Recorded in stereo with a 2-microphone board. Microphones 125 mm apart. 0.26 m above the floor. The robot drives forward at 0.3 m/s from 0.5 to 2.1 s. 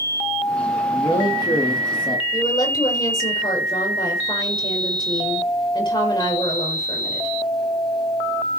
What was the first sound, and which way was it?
A man speaking, 35° left (ahead or behind).